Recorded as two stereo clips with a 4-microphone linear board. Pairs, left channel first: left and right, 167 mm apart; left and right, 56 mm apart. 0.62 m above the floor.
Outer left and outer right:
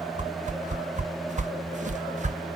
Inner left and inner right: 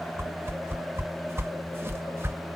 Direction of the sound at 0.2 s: 45° right (ahead or behind).